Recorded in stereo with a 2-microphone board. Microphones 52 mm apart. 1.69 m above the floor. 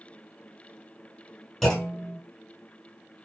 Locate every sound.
1.6 s a clunk: 5° left (ahead or behind), 1.6 m